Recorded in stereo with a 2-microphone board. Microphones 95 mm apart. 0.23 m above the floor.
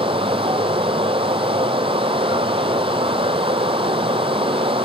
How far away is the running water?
About 0.9 m.